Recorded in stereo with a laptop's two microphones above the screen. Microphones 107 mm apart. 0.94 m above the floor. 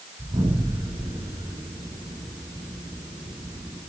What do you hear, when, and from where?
0.2 s an explosion: 50° right (ahead or behind), 6.5 m